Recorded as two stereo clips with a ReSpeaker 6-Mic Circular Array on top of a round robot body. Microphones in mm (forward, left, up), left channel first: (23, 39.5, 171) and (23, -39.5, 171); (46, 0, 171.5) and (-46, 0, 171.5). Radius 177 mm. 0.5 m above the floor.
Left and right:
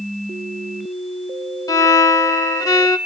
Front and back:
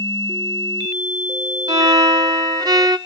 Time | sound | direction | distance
1.7 | a violin | 135° left | 0.9 m